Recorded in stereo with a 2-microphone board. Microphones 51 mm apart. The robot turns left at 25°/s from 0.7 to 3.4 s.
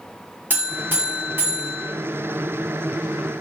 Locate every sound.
0.5 s a buzzer: 75° right, 0.9 m; by 1.9 s 105° right, 0.9 m